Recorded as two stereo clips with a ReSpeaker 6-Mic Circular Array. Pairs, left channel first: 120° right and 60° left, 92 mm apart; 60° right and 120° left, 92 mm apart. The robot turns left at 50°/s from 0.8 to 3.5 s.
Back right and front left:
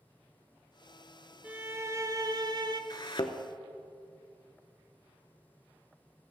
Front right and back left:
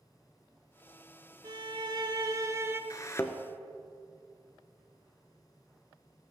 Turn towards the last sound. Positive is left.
turn(degrees=-130)